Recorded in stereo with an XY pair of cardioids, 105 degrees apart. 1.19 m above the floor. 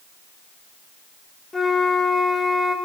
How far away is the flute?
About 0.9 m.